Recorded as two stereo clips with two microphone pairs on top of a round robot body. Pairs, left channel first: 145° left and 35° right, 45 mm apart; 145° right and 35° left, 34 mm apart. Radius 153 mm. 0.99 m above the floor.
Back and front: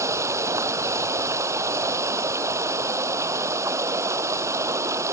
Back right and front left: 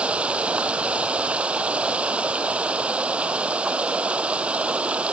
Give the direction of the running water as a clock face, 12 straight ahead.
1 o'clock.